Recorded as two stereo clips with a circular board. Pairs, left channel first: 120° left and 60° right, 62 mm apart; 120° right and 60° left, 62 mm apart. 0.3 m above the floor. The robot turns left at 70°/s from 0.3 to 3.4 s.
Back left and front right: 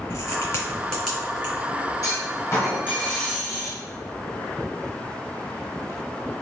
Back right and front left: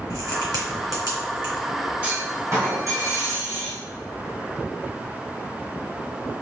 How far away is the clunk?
About 1.3 m.